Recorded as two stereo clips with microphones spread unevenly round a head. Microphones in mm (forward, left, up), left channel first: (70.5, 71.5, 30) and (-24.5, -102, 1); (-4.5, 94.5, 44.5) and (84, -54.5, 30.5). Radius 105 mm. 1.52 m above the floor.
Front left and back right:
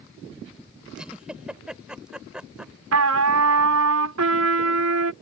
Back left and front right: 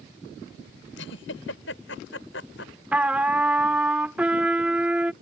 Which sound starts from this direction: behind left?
A giggle, at 1.0 s.